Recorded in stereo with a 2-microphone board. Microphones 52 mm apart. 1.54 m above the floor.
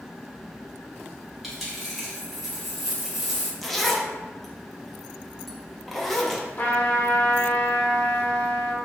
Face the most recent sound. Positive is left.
turn(degrees=40)  # may be behind; listen again after turning